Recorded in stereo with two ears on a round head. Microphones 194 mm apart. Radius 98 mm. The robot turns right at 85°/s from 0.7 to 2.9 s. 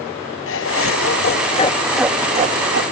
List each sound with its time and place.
0.5 s laughter: 70° left, 0.8 m; by 2.8 s 110° right, 0.8 m